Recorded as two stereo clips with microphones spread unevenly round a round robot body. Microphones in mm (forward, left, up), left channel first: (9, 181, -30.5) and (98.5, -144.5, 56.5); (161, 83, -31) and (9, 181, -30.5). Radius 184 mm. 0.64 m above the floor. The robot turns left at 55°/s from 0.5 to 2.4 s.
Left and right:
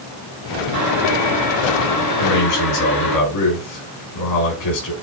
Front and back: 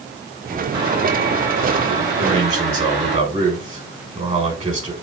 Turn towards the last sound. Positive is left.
turn(degrees=100)